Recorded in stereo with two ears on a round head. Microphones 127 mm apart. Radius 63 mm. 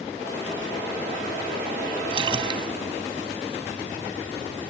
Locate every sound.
2.1 s a splash: 35° right (ahead or behind)